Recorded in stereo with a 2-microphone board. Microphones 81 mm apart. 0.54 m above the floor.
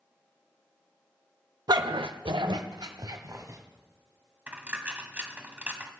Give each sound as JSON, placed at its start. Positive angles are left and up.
{"t": 1.7, "sound": "a dog barking", "side_deg": -55, "distance_m": 0.5}
{"t": 4.5, "sound": "a dropped coin", "side_deg": -20, "distance_m": 1.0}